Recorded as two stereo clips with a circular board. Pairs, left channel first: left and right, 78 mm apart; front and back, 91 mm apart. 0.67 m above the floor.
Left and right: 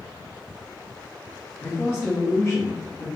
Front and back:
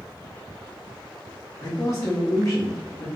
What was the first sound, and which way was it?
A man speaking, 45° left.